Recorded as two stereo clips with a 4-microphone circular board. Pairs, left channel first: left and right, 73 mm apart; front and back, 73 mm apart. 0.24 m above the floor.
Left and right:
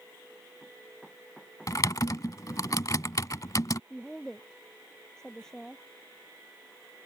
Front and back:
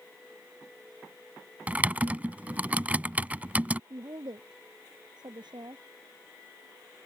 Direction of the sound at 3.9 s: 170° left.